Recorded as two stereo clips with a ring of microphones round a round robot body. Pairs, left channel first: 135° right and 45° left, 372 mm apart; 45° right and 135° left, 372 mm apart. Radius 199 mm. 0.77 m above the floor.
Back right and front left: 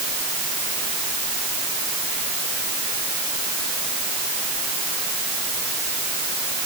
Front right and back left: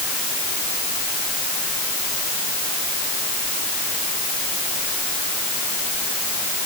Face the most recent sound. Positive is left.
No sound to turn to.